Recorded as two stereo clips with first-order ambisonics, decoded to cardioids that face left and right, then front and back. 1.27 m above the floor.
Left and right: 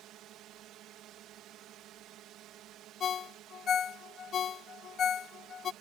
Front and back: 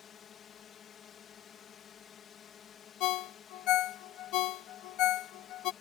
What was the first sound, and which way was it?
A drone, 55° right.